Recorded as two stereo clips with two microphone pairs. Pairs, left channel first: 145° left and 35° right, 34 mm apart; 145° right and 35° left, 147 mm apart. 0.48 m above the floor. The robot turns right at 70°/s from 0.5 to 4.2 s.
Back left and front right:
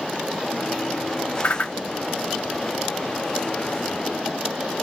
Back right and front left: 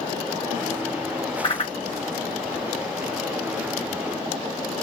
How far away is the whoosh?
About 0.5 m.